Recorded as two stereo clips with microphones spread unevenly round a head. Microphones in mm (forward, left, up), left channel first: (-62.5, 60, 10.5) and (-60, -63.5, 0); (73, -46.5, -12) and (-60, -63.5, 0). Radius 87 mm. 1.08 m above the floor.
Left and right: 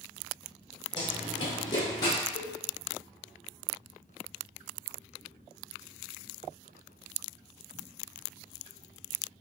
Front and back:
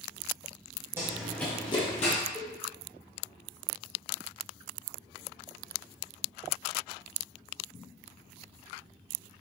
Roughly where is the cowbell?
Left.